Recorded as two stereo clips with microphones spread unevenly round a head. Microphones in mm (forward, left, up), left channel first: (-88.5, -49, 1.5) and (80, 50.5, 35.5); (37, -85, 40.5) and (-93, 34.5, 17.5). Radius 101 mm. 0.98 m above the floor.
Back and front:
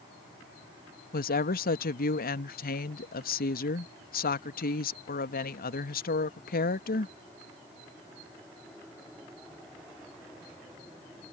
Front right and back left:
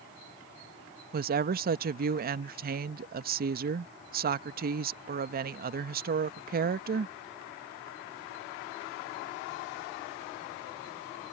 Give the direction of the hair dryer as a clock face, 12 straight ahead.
I don't hear a hair dryer.